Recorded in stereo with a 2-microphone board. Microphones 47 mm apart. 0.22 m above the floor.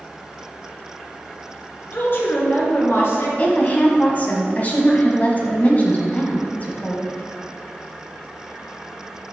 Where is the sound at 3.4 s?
35° left (ahead or behind), 1.6 m.